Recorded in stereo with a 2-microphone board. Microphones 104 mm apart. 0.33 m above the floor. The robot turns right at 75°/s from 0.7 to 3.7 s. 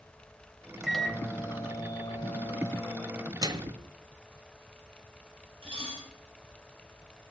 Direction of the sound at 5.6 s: 60° right (ahead or behind).